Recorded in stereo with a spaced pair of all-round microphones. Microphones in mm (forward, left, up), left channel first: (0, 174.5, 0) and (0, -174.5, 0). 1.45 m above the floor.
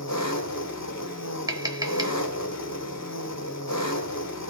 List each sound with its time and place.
0.0 s an engine running: 50° left (ahead or behind), 1.1 m
1.5 s tapping: 10° right (ahead or behind), 0.9 m